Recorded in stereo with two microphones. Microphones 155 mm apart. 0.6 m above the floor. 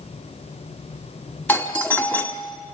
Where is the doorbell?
10° left (ahead or behind), 1.6 m.